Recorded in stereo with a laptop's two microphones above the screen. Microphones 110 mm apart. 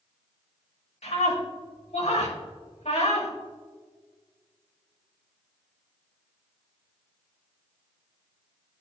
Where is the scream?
75° left (ahead or behind), 2 m.